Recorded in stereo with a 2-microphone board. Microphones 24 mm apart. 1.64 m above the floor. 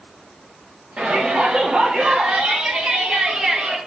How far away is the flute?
I don't hear a flute.